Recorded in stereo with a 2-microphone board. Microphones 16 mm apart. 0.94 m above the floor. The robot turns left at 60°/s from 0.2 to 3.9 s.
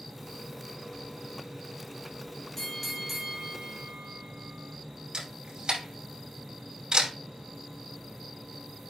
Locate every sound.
2.6 s a bell: 15° left, 2.5 m; by 4.8 s 65° right, 2.5 m
5.1 s a camera shutter: 80° right, 4.5 m